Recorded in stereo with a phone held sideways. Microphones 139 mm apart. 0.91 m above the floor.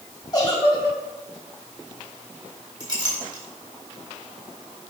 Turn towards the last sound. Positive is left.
turn(degrees=-35)  # may be behind; listen again after turning